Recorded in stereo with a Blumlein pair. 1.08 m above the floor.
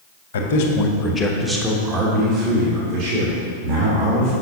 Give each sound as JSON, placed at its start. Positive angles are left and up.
{"t": 0.3, "sound": "a man speaking", "azimuth_deg": 60, "distance_m": 1.0}